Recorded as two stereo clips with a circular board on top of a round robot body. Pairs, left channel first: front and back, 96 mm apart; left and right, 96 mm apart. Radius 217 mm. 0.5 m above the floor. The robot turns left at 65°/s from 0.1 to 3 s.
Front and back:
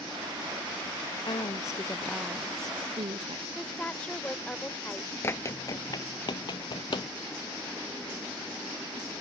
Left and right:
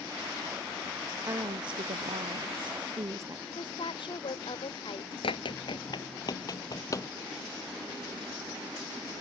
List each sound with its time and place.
1.2 s a woman speaking: 30° right; by 3.5 s 145° right
3.5 s a woman speaking: 75° left
5.2 s running footsteps: 65° left; by 7.1 s 35° left